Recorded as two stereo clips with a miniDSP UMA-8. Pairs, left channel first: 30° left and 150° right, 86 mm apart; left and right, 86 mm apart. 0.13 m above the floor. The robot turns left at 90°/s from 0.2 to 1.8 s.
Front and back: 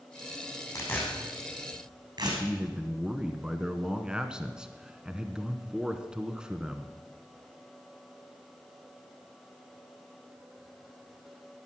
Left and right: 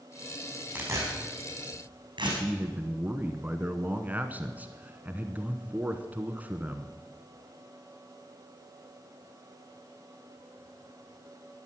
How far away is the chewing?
No chewing in this recording.